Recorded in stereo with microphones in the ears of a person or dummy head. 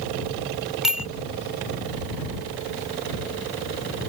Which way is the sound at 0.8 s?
5° right (ahead or behind).